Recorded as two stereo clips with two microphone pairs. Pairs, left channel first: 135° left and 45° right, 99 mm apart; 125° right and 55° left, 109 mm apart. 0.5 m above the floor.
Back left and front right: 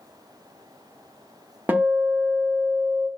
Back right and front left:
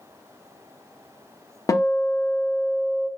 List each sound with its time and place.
1.7 s a guitar: 110° right, 0.6 m